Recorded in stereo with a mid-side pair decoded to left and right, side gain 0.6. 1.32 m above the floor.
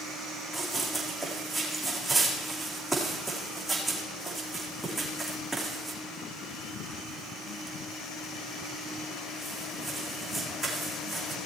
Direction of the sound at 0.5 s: 15° right.